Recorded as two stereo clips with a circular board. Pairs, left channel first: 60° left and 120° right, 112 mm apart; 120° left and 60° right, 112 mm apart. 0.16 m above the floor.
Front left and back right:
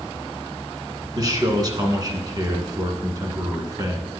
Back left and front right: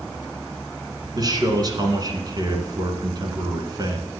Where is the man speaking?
90° right, 1.6 m.